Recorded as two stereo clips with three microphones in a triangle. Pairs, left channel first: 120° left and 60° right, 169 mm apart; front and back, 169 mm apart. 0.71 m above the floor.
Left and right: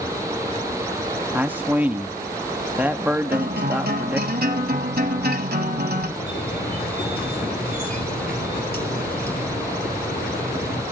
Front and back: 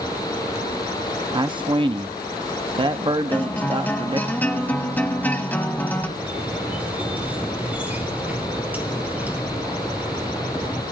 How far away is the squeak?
About 3 m.